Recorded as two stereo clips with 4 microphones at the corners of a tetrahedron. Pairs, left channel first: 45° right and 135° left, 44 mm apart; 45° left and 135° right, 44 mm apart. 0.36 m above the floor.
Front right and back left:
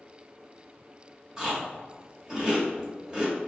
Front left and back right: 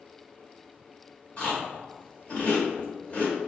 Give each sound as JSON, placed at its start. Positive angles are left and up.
{"t": 1.4, "sound": "chewing", "azimuth_deg": 65, "distance_m": 1.7}